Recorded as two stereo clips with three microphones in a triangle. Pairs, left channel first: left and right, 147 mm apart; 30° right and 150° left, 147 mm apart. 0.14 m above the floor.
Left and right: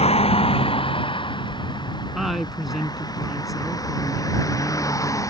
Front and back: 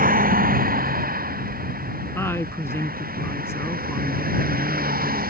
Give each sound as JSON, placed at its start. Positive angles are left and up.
{"t": 0.0, "sound": "a vehicle", "azimuth_deg": 135}
{"t": 2.1, "sound": "a woman speaking", "azimuth_deg": -5}